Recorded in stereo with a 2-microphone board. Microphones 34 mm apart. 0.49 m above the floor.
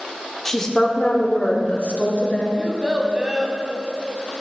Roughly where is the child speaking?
Right.